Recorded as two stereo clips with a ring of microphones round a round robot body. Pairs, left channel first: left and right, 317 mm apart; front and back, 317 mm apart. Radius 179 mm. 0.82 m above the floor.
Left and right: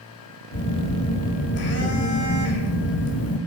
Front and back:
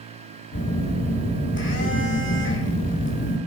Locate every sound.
0.5 s a phone buzzing: 50° left, 2.5 m